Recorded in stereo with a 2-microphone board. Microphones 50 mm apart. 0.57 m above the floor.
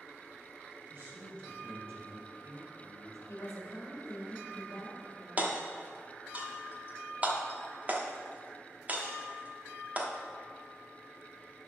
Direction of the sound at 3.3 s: 70° left (ahead or behind).